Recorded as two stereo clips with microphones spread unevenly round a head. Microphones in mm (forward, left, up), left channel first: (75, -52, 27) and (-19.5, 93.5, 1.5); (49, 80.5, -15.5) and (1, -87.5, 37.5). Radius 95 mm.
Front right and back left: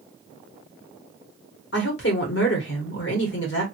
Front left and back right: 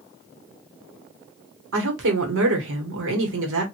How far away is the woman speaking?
About 1.3 m.